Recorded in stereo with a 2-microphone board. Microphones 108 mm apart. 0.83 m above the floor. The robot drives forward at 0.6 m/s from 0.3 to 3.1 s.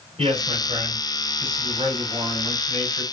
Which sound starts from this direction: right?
A man speaking, at 0.2 s.